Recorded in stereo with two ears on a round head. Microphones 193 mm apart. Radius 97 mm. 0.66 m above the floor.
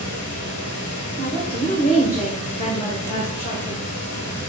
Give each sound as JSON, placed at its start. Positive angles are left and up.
{"t": 0.0, "sound": "running water", "side_deg": 80, "distance_m": 3.5}
{"t": 1.2, "sound": "a woman speaking", "side_deg": 35, "distance_m": 2.5}